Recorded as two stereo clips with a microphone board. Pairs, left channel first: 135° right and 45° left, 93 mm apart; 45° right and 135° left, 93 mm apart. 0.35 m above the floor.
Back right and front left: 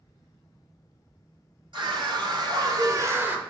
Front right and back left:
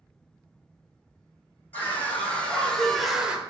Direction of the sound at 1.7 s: 25° left.